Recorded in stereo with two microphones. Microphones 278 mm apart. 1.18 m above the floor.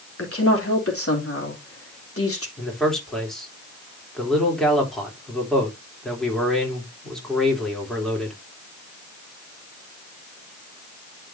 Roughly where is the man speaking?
Centre.